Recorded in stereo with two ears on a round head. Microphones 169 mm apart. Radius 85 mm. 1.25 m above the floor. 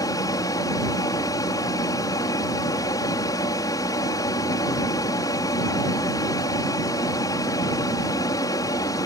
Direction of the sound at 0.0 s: 20° left (ahead or behind).